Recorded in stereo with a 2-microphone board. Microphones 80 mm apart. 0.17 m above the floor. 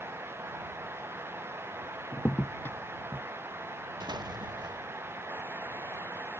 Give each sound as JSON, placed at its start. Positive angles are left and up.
{"t": 2.1, "sound": "a crack", "side_deg": 30}
{"t": 4.0, "sound": "an explosion", "side_deg": -65}